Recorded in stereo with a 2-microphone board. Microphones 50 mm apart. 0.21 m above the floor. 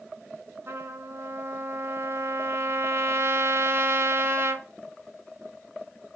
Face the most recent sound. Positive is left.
turn(degrees=-65)  # may be behind; listen again after turning